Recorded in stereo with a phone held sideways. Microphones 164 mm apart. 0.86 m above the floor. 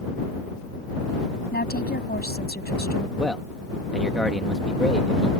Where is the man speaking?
Centre (ahead or behind).